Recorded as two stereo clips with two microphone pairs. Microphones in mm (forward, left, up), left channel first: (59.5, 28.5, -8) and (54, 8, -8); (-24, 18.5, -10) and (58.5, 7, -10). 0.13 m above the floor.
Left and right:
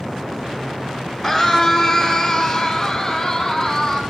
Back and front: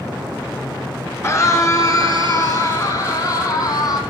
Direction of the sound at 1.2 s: 145° left.